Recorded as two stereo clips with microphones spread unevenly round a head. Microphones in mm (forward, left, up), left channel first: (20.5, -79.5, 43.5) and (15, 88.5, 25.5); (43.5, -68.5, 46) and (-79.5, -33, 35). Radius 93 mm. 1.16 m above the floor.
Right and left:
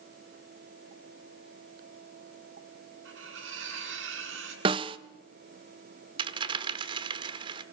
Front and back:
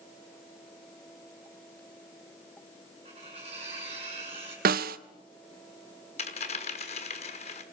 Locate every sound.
3.0 s cutlery clinking: 105° left, 8 m
4.7 s a snare drum: 155° left, 0.7 m
6.2 s a dropped coin: 30° left, 1.1 m